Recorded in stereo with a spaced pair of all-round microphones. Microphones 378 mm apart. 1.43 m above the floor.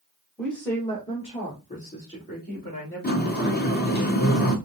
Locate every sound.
0.4 s a woman speaking: centre (ahead or behind), 1.3 m; by 4.0 s 30° left (ahead or behind), 3.5 m
3.0 s a sliding door: 25° left (ahead or behind), 0.8 m